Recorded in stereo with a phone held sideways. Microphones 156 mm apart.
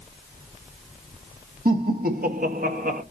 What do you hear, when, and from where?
1.6 s laughter: 70° right (ahead or behind), 2 m; by 3.0 s 60° right (ahead or behind), 1.5 m